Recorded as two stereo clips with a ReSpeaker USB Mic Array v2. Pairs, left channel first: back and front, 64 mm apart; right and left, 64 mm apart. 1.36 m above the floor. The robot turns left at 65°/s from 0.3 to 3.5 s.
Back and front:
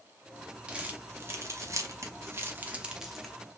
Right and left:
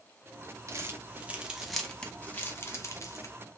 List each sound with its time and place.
0.7 s crumpling: 70° left, 0.7 m; by 3.4 s 100° right, 0.7 m